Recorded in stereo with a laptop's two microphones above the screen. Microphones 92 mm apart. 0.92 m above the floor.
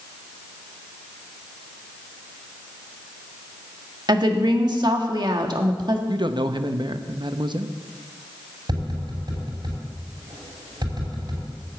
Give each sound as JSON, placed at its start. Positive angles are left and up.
{"t": 4.1, "sound": "a woman speaking", "side_deg": -50, "distance_m": 1.4}
{"t": 6.1, "sound": "a man speaking", "side_deg": -55, "distance_m": 0.8}
{"t": 8.7, "sound": "tapping", "side_deg": -50, "distance_m": 5.5}